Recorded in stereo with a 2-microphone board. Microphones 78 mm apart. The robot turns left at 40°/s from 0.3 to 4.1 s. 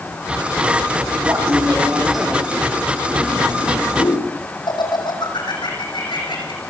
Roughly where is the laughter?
Right.